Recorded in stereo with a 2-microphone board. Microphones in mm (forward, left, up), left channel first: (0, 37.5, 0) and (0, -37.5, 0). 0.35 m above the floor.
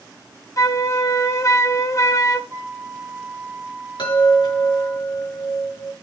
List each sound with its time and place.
0.6 s a flute: 40° left (ahead or behind), 0.9 m
2.5 s a flute: 30° right (ahead or behind), 3 m
4.0 s a chime: 75° left (ahead or behind), 6 m